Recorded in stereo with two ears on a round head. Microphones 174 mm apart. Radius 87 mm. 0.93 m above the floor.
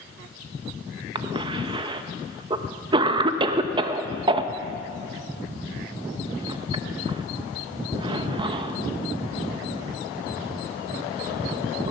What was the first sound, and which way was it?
A cough, 25° right (ahead or behind).